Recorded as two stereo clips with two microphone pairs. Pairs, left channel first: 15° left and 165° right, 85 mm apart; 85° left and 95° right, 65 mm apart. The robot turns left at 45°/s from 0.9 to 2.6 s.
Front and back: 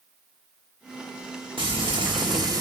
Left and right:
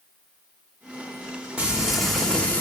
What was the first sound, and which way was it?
Frying, 165° right.